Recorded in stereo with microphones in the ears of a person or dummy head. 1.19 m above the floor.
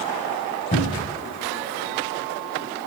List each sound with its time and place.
0.7 s a cupboard door: 45° left (ahead or behind), 6 m